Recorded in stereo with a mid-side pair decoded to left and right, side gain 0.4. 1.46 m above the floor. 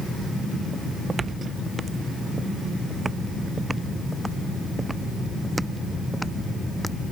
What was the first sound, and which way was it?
Footsteps, 45° right.